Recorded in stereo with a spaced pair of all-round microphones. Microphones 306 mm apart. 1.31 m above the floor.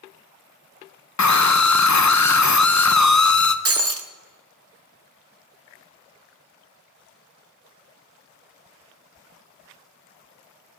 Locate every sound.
1.2 s a scream: 60° left (ahead or behind), 0.7 m
3.6 s breaking glass: 45° right (ahead or behind), 0.7 m